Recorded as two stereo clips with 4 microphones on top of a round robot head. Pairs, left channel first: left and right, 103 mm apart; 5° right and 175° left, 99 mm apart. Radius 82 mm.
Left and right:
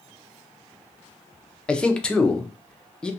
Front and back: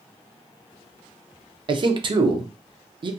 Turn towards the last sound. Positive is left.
turn(degrees=170)